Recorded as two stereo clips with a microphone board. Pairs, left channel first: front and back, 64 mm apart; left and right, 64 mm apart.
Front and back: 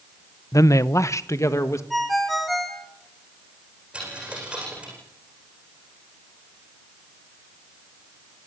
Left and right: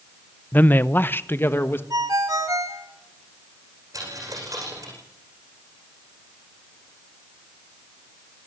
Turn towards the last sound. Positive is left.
turn(degrees=-105)